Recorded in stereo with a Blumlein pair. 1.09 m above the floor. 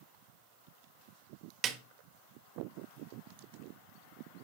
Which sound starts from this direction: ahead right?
A snare drum, at 1.6 s.